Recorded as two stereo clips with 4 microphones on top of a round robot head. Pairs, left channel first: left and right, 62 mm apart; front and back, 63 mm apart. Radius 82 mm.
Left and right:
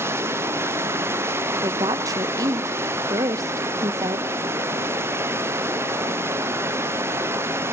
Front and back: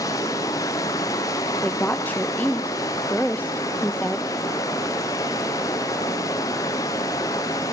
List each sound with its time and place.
0.0 s running water: 45° right, 0.8 m
1.6 s a woman speaking: 70° right, 0.5 m